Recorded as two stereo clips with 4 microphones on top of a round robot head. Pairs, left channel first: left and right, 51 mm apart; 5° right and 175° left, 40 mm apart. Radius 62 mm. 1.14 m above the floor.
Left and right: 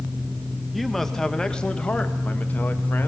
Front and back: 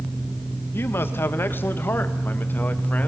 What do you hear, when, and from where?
0.7 s a man speaking: straight ahead, 1.7 m; by 3.1 s 40° left, 2 m